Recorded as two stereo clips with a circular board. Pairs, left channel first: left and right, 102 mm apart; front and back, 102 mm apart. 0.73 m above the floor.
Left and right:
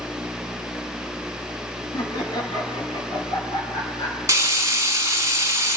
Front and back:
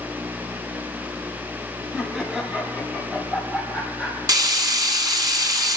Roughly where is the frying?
Behind right.